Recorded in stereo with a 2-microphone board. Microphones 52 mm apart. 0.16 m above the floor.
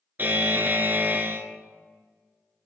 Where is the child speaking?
No child speaking in this recording.